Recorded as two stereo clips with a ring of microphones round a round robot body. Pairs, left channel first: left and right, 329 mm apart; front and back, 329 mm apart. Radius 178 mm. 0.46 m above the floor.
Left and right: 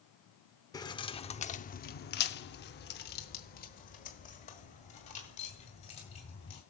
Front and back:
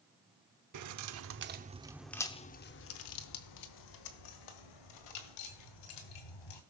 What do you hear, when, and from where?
0.7 s keys jangling: 165° left, 1.0 m; by 6.6 s 15° left, 2.5 m